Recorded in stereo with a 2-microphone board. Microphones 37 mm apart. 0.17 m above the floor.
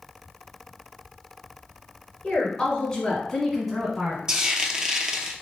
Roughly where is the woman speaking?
Left.